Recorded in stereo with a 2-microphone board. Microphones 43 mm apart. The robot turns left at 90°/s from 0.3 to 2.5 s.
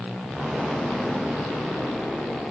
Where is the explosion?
150° right, 6.5 m; by 2.4 s 20° left, 6.5 m.